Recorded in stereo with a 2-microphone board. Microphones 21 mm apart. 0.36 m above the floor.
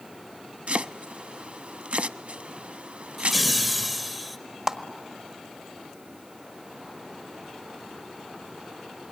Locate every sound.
0.7 s chopping: 70° right (ahead or behind), 0.5 m
3.2 s laughter: centre (ahead or behind), 1.0 m
4.7 s a clap: 25° right (ahead or behind), 1.4 m